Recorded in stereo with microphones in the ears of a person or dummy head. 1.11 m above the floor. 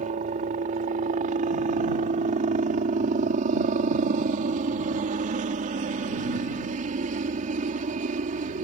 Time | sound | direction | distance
0.0 | a helicopter | 35° right (ahead or behind) | ?